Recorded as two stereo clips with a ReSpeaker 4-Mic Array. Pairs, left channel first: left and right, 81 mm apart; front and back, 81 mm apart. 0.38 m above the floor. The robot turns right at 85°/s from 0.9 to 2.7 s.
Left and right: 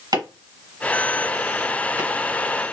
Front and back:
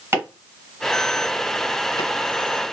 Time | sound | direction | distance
0.1 | chopping | 120° right | 1.5 m